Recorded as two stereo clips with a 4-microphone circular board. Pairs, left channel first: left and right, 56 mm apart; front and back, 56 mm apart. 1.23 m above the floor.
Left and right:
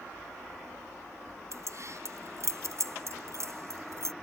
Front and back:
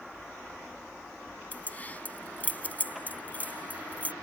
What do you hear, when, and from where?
1.5 s keys jangling: 60° right